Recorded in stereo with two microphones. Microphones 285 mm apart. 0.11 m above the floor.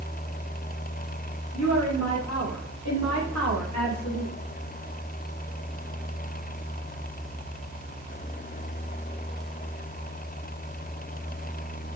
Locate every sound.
1.5 s a woman speaking: 65° left (ahead or behind), 8 m